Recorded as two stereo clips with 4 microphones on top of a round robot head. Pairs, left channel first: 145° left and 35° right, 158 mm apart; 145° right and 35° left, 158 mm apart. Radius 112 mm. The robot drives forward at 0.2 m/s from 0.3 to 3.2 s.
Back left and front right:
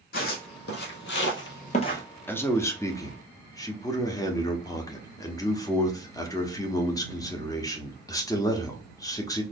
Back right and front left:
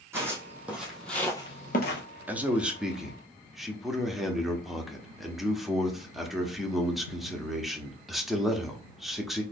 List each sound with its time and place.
0.1 s footsteps: 115° left, 1.6 m; by 2.0 s 145° right, 0.7 m
2.3 s a man speaking: 100° left, 1.0 m; by 9.4 s 125° left, 1.0 m